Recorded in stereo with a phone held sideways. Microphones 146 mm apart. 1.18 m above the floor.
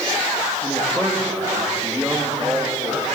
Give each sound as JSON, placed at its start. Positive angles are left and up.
{"t": 0.6, "sound": "a man speaking", "side_deg": 5, "distance_m": 2.5}